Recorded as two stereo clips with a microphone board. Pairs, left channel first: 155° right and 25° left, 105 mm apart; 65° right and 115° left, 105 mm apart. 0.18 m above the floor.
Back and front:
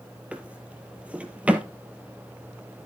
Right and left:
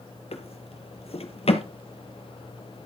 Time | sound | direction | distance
0.3 | a drawer | 55° right | 1.5 m